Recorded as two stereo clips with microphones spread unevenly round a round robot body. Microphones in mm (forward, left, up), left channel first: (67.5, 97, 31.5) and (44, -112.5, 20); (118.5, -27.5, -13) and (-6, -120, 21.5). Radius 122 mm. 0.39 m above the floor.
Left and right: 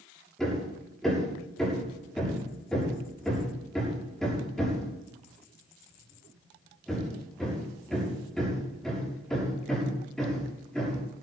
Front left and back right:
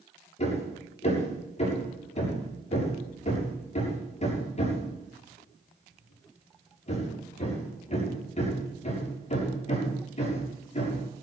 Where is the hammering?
5° right, 7.5 m.